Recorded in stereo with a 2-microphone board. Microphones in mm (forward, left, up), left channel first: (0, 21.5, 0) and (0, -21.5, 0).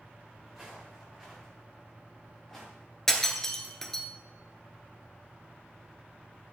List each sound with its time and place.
0.5 s footsteps: 10° right (ahead or behind), 4.5 m; by 2.7 s 5° left (ahead or behind), 6.5 m
3.1 s breaking glass: 10° left (ahead or behind), 1.5 m